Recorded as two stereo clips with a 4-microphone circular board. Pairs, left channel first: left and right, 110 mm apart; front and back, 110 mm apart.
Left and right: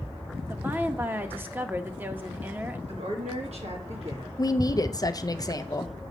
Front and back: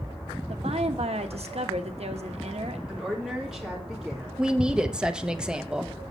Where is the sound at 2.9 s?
95° right, 2 m.